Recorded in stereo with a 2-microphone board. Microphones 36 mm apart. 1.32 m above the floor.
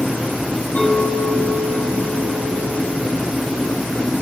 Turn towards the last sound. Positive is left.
turn(degrees=50)  # may be behind; listen again after turning